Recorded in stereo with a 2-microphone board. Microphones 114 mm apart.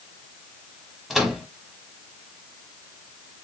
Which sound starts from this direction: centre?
A microwave, at 1.1 s.